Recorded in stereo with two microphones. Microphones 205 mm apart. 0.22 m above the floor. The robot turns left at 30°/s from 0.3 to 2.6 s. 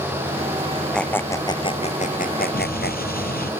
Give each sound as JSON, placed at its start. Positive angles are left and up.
{"t": 0.9, "sound": "a squeak", "side_deg": 5}
{"t": 2.5, "sound": "an explosion", "side_deg": 45}